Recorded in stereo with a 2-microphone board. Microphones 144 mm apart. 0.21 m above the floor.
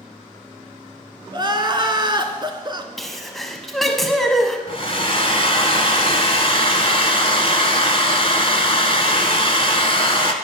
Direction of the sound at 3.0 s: Centre (ahead or behind).